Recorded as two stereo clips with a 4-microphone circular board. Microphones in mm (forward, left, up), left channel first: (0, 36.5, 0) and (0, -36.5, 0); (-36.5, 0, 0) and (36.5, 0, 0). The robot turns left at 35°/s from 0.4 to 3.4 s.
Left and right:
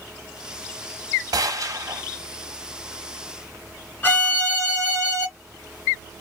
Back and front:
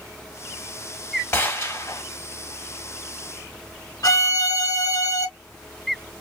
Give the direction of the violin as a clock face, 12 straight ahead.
7 o'clock.